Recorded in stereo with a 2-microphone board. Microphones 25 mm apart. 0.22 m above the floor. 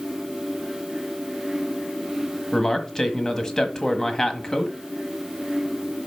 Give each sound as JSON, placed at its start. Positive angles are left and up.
{"t": 2.5, "sound": "a man speaking", "side_deg": 20, "distance_m": 1.2}